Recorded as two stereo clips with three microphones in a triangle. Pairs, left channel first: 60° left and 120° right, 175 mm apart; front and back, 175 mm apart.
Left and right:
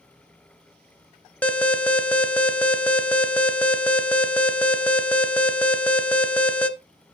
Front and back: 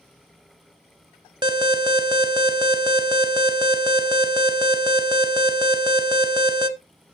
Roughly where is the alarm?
Behind left.